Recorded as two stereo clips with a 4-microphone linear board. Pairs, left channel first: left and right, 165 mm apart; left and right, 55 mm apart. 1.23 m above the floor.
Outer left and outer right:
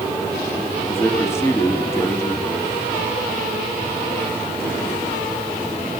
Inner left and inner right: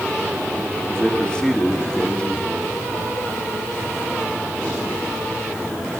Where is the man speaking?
15° left (ahead or behind), 1.9 m.